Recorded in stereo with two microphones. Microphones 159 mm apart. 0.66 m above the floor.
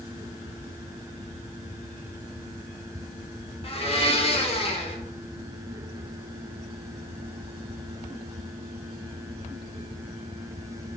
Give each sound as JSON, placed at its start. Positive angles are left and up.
{"t": 3.6, "sound": "a blender", "side_deg": 40, "distance_m": 0.5}